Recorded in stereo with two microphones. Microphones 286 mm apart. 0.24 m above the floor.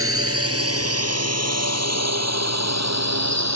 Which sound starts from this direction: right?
A drone, at 0.0 s.